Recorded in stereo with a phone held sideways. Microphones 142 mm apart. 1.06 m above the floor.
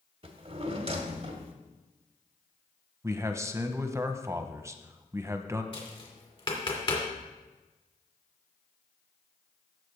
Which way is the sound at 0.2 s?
45° right (ahead or behind).